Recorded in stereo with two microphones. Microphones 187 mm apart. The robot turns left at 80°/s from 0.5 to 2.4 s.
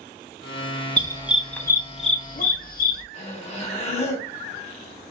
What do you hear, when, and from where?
1.0 s a dog barking: 30° right (ahead or behind), 0.5 m; by 3.0 s 50° left (ahead or behind), 0.5 m
3.1 s breathing: 35° left (ahead or behind), 0.9 m